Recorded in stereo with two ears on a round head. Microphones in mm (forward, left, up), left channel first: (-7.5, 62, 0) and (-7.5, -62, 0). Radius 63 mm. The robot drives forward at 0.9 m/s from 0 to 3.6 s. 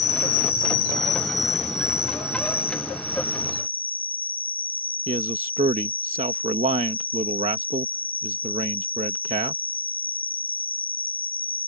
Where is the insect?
50° left (ahead or behind); by 11.7 s 15° left (ahead or behind).